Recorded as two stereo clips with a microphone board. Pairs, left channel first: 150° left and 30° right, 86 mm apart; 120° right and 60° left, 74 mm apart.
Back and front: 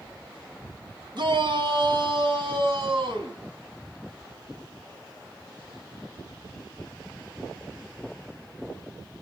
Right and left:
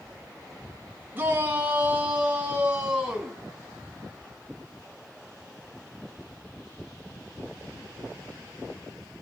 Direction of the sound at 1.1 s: 5° right.